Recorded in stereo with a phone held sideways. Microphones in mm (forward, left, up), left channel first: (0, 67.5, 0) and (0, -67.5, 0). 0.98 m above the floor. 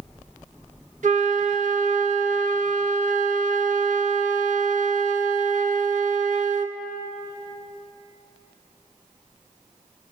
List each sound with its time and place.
1.0 s a flute: 65° right (ahead or behind), 1.2 m